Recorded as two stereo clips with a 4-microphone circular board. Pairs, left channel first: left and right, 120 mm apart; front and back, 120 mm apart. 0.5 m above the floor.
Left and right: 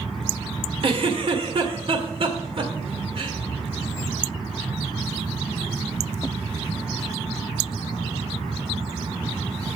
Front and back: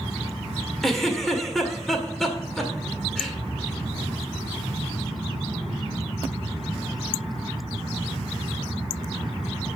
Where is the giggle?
85° right, 1.9 m.